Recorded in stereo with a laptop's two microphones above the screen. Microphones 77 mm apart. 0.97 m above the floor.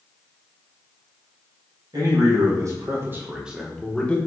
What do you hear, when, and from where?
1.9 s a man speaking: 60° right (ahead or behind), 1.4 m; by 4.2 s 15° left (ahead or behind), 1.1 m